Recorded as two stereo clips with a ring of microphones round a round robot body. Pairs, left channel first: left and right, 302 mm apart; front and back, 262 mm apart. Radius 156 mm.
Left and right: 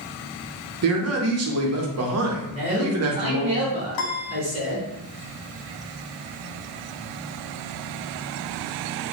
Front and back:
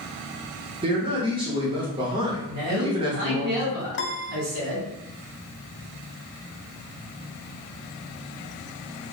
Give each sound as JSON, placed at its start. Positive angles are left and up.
{"t": 0.8, "sound": "a man speaking", "azimuth_deg": -110, "distance_m": 0.9}
{"t": 2.5, "sound": "a man speaking", "azimuth_deg": -160, "distance_m": 1.2}
{"t": 3.9, "sound": "a piano", "azimuth_deg": 50, "distance_m": 0.5}